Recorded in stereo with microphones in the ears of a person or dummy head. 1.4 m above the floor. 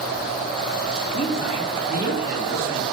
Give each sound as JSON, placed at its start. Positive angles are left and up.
{"t": 1.1, "sound": "a man speaking", "side_deg": 40, "distance_m": 2.5}